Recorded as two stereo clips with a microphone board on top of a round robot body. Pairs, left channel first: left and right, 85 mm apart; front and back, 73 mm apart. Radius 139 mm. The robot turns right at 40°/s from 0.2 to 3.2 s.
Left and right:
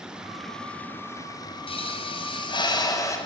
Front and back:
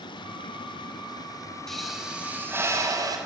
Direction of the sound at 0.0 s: 10° right.